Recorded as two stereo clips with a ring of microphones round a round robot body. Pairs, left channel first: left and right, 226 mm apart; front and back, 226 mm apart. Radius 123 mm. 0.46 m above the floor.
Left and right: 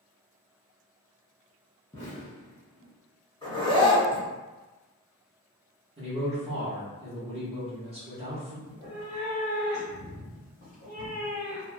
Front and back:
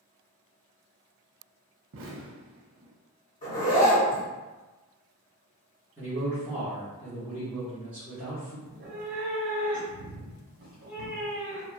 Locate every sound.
1.9 s an explosion: 160° left, 0.6 m
3.4 s a zipper: 45° left, 1.3 m
6.0 s a man speaking: 105° right, 1.0 m
8.7 s a cat meowing: 150° left, 1.4 m